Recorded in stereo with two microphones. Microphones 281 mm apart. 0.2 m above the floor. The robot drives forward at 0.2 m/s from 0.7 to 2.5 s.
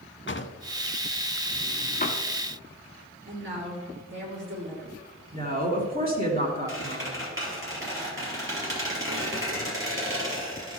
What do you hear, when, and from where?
0.3 s a drawer: 45° left (ahead or behind), 0.5 m; by 2.2 s 30° left (ahead or behind), 0.8 m
3.3 s a woman speaking: 40° right (ahead or behind), 3.5 m
5.3 s a woman speaking: 30° right (ahead or behind), 2.5 m
6.7 s a squeak: 45° right (ahead or behind), 3.5 m